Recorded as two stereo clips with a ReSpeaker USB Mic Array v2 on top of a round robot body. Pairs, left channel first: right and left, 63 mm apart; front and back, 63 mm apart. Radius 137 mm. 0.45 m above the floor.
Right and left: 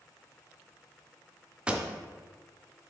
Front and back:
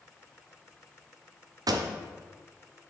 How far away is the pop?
About 0.5 m.